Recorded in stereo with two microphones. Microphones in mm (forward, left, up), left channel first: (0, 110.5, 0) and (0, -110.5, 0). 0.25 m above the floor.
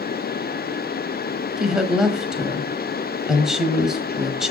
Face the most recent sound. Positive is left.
turn(degrees=-5)  # may be behind; listen again after turning